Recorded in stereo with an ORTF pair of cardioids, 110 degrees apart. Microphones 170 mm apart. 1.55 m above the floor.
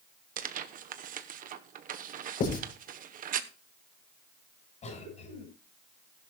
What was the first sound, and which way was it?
Tearing paper, 50° right.